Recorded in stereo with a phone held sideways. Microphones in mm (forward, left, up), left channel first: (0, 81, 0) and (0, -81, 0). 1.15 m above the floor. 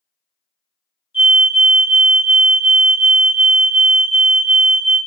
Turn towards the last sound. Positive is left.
turn(degrees=30)  # may be behind; listen again after turning